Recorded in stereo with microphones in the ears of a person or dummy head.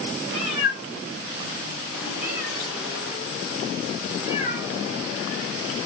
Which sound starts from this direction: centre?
A cat meowing, at 0.3 s.